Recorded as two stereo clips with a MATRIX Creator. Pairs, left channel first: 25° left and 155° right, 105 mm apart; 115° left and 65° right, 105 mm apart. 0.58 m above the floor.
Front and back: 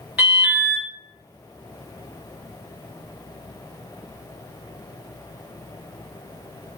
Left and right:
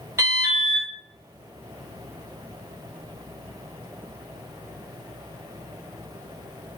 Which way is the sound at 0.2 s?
90° right.